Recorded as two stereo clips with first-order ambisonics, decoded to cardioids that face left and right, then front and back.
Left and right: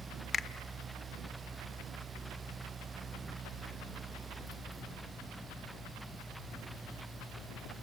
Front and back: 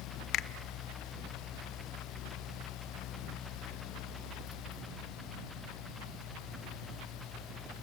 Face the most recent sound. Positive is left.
turn(degrees=25)